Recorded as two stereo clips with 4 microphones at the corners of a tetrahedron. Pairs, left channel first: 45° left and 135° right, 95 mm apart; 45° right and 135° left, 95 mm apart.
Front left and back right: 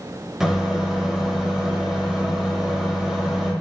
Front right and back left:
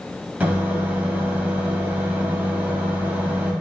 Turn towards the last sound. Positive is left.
turn(degrees=155)